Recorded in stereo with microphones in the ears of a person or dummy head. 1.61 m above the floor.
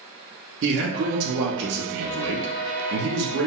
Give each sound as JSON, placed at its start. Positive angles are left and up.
{"t": 0.6, "sound": "a man speaking", "side_deg": -60, "distance_m": 0.5}